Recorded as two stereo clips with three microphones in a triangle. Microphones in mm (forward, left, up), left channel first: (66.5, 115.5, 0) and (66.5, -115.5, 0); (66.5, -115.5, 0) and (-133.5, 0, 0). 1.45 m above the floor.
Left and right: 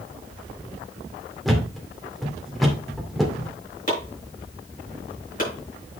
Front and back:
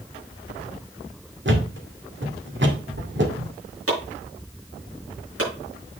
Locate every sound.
1.4 s a thud: straight behind, 2.0 m
3.9 s chopping: 145° left, 6 m